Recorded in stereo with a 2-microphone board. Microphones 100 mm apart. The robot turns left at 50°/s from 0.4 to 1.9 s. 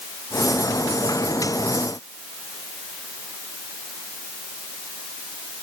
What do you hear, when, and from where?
Only background noise.